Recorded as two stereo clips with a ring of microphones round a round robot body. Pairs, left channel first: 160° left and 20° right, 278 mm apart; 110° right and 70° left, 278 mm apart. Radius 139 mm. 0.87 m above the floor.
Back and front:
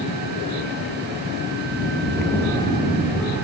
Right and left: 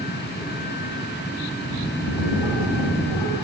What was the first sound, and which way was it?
A bird, 115° right.